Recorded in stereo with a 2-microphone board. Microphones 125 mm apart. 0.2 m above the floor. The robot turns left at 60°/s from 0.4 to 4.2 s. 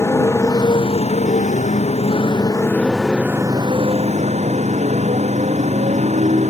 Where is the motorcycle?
155° left; by 6.5 s 70° right.